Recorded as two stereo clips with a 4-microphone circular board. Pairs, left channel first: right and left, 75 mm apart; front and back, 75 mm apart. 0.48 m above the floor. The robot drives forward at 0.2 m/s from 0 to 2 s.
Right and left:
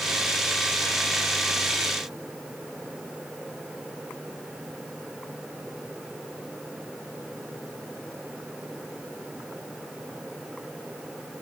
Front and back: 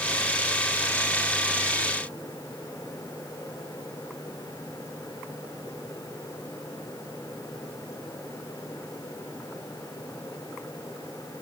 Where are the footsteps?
No footsteps in this recording.